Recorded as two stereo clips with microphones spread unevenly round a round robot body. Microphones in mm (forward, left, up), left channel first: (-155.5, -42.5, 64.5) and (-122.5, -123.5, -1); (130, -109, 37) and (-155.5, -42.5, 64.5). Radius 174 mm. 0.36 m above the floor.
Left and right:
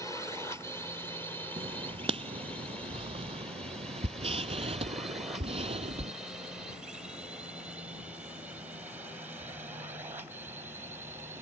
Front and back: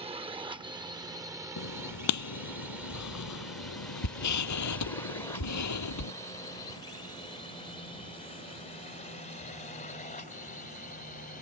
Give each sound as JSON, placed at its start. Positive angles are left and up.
{"t": 0.0, "sound": "a drone", "azimuth_deg": -140}
{"t": 1.6, "sound": "writing", "azimuth_deg": -40}